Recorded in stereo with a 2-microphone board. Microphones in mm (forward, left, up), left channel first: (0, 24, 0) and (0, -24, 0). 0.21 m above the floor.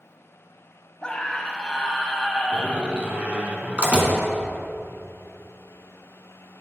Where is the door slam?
30° right (ahead or behind), 1.6 m.